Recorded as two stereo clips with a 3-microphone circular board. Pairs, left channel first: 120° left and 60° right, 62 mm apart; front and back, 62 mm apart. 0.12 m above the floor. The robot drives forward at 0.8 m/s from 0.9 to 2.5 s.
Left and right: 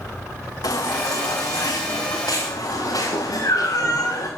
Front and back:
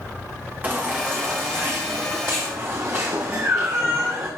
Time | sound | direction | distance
0.6 | a baby crying | 115° left | 5 m